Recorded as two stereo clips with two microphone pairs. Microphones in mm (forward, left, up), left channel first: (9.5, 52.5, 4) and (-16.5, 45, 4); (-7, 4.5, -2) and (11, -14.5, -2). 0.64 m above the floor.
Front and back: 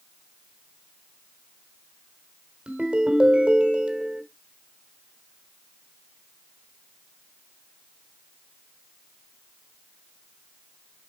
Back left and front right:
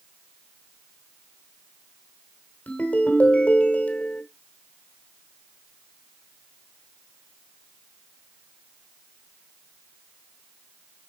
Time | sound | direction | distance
2.7 | a ringtone | 145° left | 1.4 m